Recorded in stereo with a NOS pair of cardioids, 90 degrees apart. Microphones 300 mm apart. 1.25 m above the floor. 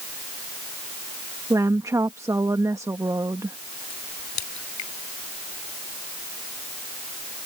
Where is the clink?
I don't hear a clink.